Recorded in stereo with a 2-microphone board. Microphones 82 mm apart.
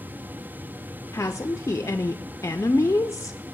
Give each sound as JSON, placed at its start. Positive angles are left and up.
{"t": 1.1, "sound": "a woman speaking", "side_deg": 35, "distance_m": 0.5}